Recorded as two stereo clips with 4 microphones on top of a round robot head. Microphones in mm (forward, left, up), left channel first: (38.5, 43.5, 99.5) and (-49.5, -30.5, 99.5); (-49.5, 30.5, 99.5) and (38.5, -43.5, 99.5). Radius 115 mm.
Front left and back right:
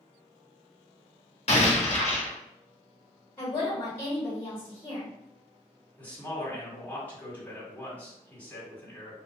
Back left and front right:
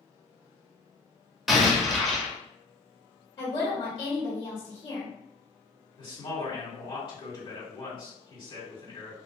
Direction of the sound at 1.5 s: 50° left.